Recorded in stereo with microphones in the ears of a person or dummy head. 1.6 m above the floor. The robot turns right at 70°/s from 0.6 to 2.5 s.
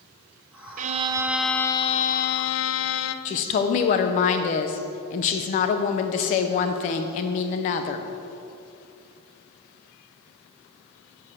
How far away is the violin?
About 0.5 m.